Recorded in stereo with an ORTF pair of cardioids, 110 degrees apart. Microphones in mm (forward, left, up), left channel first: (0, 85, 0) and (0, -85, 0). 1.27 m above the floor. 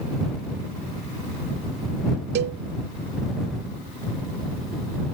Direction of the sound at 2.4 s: 70° right.